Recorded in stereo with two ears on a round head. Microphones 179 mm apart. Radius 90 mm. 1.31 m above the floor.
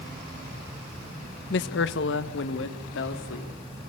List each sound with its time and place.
1.5 s a man speaking: 55° left (ahead or behind), 1.2 m; by 3.5 s 65° left (ahead or behind), 3.5 m